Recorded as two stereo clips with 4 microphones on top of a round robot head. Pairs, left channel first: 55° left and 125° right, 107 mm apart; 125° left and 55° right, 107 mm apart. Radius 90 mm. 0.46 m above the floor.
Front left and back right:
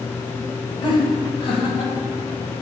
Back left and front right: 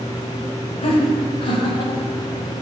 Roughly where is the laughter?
Left.